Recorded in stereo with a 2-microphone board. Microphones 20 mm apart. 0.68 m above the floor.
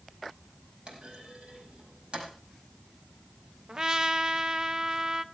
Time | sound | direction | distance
0.9 | a clunk | 55° right (ahead or behind) | 5 m
3.7 | a trumpet | 35° right (ahead or behind) | 0.8 m